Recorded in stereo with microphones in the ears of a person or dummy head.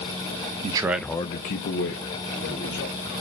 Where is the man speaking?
30° right (ahead or behind), 0.6 m; by 3.2 s 75° left (ahead or behind), 2 m.